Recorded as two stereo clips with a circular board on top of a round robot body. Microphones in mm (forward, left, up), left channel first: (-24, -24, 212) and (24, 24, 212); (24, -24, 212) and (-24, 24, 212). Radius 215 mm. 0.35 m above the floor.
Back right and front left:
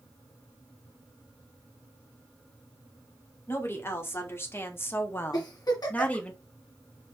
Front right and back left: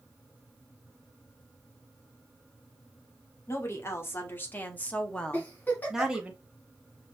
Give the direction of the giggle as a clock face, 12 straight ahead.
4 o'clock.